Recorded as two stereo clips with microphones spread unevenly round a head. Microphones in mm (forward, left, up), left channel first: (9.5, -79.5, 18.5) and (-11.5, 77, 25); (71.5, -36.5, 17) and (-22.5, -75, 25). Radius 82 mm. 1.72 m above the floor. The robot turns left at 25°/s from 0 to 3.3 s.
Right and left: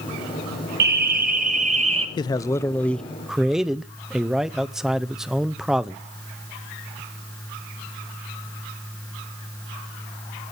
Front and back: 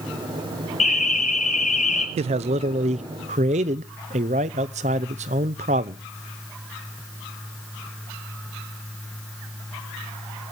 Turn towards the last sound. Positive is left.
turn(degrees=-175)